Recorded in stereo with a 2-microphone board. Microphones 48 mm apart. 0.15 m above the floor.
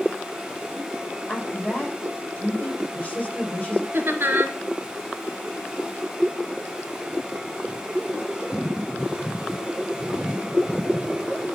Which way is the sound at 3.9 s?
50° right (ahead or behind).